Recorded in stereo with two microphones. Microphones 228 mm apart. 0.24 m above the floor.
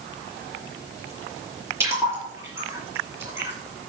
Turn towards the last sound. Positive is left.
turn(degrees=-10)  # may be behind; listen again after turning